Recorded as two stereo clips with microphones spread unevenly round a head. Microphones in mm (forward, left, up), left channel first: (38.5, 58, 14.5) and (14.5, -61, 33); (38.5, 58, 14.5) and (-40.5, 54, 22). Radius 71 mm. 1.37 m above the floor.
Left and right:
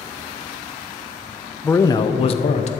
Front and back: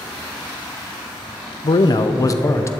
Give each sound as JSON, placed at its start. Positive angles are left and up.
{"t": 1.6, "sound": "a man speaking", "azimuth_deg": 5, "distance_m": 0.6}